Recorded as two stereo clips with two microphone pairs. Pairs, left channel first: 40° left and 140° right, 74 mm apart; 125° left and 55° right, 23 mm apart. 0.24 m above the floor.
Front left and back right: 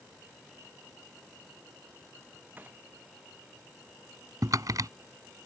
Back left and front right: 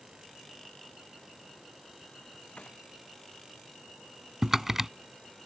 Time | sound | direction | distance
2.6 | a gunshot | 155° left | ?
4.4 | typing on a keyboard | 125° right | ?